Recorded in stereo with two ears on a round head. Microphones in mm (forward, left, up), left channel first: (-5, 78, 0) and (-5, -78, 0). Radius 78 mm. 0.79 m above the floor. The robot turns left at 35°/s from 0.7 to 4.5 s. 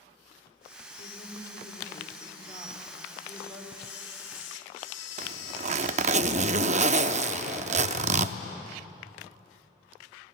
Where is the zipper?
45° right (ahead or behind), 0.6 m.